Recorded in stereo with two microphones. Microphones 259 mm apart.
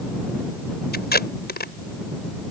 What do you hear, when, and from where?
0.9 s tape being pulled: 40° left (ahead or behind)